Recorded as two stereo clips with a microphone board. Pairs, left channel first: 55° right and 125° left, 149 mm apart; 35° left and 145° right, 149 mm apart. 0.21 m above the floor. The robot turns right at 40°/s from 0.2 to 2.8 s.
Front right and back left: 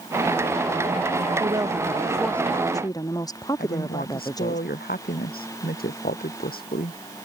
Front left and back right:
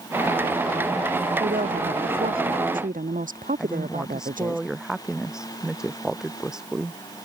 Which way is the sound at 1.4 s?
175° right.